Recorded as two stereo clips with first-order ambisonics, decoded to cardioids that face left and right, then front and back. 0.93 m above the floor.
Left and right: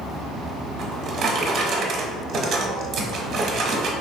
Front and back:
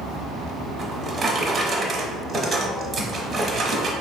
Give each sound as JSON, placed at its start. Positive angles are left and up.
{"t": 0.8, "sound": "a drawer", "azimuth_deg": -115, "distance_m": 0.8}